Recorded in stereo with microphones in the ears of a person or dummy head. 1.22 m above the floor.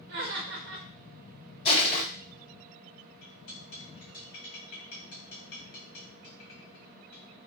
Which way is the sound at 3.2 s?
55° left (ahead or behind).